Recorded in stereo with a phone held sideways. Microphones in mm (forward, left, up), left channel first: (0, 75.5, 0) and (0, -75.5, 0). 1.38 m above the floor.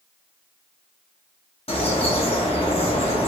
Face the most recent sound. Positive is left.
turn(degrees=40)  # may be behind; listen again after turning